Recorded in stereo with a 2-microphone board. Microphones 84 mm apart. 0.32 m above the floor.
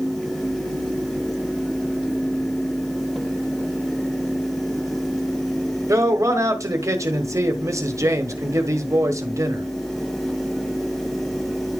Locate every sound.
5.9 s a man speaking: 35° right (ahead or behind), 1.2 m